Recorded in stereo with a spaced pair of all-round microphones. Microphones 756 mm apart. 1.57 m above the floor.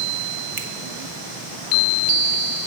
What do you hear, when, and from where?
0.6 s a finger snap: 40° right (ahead or behind), 1.0 m